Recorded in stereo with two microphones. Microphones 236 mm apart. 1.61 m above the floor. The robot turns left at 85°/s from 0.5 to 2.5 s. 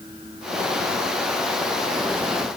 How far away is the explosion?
I don't hear an explosion.